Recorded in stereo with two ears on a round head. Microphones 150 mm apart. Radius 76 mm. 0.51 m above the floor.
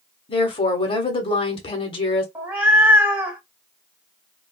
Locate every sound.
0.3 s a woman speaking: 30° left (ahead or behind), 1.0 m
2.4 s a cat meowing: 10° right (ahead or behind), 0.9 m